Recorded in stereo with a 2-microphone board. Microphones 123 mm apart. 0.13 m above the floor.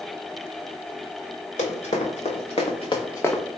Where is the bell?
I don't hear a bell.